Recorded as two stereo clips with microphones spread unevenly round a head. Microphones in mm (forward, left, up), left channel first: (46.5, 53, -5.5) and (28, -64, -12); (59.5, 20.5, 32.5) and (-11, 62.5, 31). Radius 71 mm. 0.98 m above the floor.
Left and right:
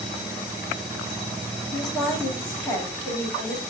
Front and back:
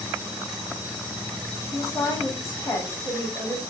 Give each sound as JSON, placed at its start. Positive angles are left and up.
{"t": 1.7, "sound": "a woman speaking", "azimuth_deg": 20, "distance_m": 2.0}